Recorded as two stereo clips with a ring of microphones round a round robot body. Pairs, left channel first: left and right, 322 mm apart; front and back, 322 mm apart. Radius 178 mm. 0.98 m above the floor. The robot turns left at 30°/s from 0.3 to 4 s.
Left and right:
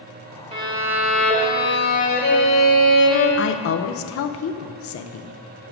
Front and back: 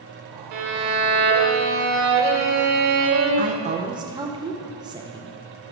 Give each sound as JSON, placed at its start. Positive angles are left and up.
{"t": 0.5, "sound": "a violin", "azimuth_deg": -160, "distance_m": 1.3}
{"t": 3.4, "sound": "a woman speaking", "azimuth_deg": 125, "distance_m": 0.6}